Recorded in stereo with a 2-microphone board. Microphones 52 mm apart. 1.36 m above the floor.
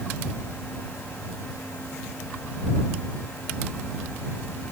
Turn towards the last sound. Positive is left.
No sound to turn to.